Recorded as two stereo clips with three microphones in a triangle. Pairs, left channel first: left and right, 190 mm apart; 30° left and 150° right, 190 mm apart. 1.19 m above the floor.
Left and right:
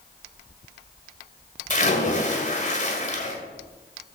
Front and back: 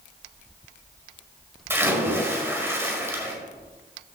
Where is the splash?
135° left, 1.6 m.